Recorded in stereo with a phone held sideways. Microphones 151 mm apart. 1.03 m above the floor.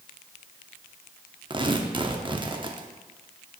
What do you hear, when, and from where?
1.5 s tearing paper: 30° right (ahead or behind), 0.6 m